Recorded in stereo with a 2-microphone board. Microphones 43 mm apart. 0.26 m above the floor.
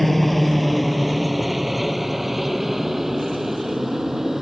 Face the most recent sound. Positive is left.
turn(degrees=-10)  # may be behind; listen again after turning